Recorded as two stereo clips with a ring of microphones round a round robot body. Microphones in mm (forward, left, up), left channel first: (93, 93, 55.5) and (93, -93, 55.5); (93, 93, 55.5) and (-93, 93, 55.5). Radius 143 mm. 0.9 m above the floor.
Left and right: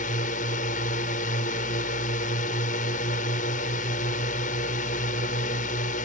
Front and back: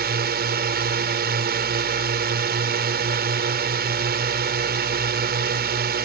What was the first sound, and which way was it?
A drone, 150° left.